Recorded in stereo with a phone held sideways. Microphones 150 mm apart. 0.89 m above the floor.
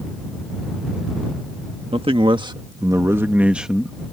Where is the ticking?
I don't hear ticking.